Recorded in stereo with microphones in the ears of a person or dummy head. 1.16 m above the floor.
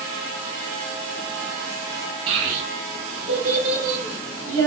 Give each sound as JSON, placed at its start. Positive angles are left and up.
{"t": 2.3, "sound": "a child speaking", "side_deg": -30, "distance_m": 1.3}